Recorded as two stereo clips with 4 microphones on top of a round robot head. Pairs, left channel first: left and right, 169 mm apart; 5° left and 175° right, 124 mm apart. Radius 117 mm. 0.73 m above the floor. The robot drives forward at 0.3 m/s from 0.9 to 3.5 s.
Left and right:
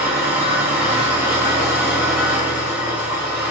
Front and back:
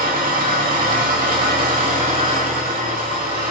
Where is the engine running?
170° right, 3 m.